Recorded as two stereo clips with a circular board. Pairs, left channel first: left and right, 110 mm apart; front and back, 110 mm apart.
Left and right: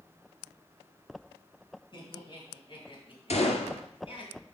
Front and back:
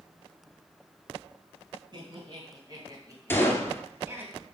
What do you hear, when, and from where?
1.9 s laughter: 135° left, 4.5 m; by 4.3 s 110° left, 2.5 m
3.3 s a gunshot: 70° left, 1.6 m